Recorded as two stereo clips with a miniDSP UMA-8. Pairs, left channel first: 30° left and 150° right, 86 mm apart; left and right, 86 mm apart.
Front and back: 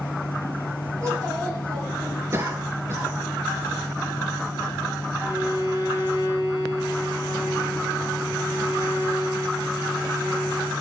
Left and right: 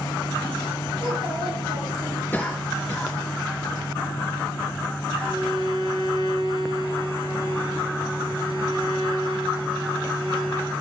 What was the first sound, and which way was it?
A child speaking, 105° right.